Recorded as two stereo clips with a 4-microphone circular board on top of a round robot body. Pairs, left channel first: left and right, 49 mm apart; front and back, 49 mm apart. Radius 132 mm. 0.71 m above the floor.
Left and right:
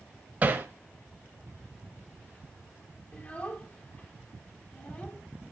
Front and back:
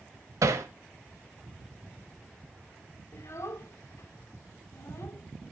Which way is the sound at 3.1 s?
30° left.